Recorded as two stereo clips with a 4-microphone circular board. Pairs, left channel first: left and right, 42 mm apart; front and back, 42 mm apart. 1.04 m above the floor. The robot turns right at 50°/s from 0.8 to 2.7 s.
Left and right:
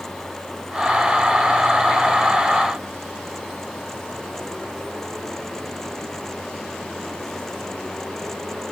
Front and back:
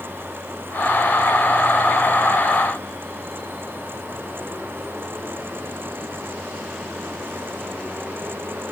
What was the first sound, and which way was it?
Only background noise.